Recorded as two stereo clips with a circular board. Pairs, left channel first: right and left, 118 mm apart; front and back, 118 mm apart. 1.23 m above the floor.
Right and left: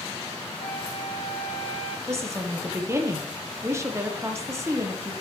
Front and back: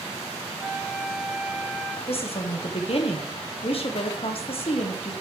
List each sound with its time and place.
0.6 s a flute: 100° right, 1.6 m
2.1 s a woman speaking: 25° left, 1.0 m